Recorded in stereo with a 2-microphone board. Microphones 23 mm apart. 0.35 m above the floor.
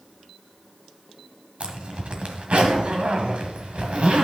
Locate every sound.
1.6 s a zipper: 60° right (ahead or behind), 1.5 m